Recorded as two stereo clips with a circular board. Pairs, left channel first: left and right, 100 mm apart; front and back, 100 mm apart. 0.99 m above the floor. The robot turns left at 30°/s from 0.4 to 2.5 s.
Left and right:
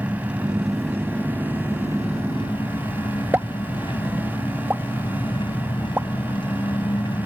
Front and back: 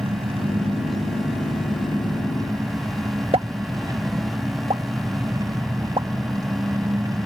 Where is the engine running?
170° right; by 7.3 s 130° left.